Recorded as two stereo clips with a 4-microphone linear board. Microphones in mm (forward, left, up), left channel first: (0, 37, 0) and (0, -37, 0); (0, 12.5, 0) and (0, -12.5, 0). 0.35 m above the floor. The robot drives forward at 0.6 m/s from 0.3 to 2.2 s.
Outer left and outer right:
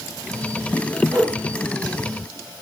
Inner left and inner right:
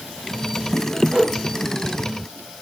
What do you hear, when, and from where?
1.1 s a whoosh: 45° right (ahead or behind), 1.4 m; by 1.3 s 40° right (ahead or behind), 1.5 m